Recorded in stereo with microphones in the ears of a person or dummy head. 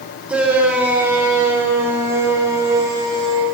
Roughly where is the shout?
Centre.